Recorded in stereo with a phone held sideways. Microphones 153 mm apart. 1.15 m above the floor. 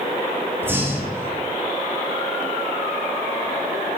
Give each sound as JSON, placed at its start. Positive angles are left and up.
{"t": 0.6, "sound": "breathing", "side_deg": -15, "distance_m": 3.0}